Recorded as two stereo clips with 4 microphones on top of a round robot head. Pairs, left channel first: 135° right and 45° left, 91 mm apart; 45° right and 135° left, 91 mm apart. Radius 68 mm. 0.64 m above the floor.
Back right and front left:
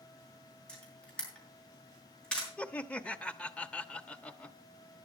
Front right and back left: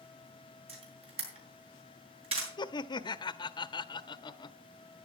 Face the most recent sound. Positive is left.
turn(degrees=-60)